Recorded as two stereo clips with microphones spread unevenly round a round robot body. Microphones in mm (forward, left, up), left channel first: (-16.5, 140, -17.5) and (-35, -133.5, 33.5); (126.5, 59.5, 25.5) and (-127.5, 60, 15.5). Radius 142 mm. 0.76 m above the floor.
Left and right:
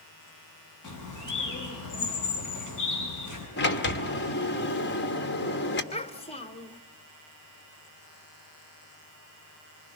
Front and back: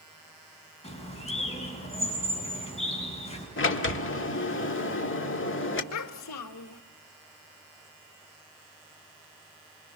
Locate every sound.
0.8 s a bird: 65° left, 7.5 m
3.6 s a sliding door: 40° left, 1.8 m
5.9 s a child speaking: 15° left, 1.3 m